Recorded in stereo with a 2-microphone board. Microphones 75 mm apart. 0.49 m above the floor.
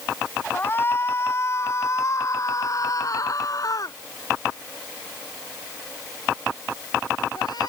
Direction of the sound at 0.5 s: 30° left (ahead or behind).